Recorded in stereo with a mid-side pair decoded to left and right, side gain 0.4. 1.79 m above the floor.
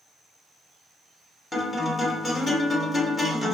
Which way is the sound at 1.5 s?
35° left.